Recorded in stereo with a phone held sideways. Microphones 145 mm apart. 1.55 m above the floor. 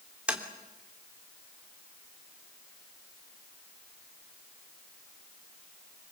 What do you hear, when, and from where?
0.3 s tapping: 5° right (ahead or behind), 2.5 m